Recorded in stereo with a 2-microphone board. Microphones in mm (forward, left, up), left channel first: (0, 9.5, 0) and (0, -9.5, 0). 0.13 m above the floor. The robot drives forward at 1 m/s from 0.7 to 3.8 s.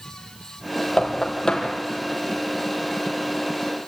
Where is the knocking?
45° left (ahead or behind), 3.5 m; by 1.7 s 35° left (ahead or behind), 4 m.